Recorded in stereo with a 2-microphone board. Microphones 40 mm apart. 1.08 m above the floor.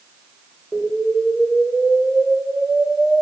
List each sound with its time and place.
0.7 s an explosion: 20° left (ahead or behind), 1.4 m